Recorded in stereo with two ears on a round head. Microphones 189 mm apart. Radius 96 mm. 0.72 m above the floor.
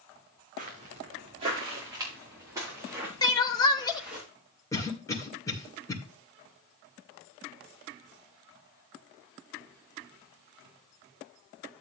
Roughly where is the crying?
Centre.